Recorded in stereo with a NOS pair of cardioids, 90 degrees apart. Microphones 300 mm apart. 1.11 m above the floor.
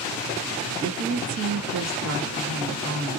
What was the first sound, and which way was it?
A woman speaking, 65° right.